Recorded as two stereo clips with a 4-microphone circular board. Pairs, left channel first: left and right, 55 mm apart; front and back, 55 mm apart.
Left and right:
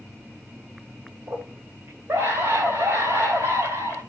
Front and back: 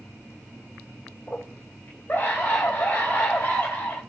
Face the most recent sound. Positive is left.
turn(degrees=-60)